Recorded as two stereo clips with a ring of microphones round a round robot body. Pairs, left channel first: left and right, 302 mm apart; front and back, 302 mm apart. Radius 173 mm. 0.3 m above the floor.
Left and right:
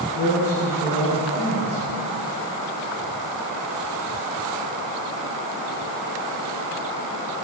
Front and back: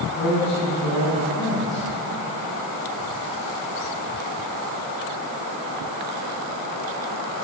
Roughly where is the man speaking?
Ahead left.